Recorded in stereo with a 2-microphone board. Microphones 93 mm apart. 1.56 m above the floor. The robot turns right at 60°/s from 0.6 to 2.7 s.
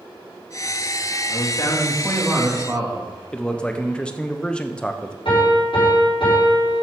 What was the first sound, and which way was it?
A man speaking, 125° left.